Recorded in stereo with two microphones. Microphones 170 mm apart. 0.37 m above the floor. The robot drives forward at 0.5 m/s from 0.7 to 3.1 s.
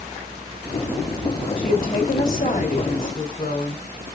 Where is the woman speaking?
55° left (ahead or behind), 1.6 m; by 3.8 s 50° left (ahead or behind), 1.7 m.